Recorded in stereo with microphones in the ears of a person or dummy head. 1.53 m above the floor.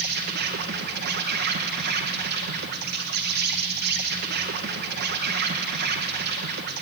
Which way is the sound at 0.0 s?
60° right (ahead or behind).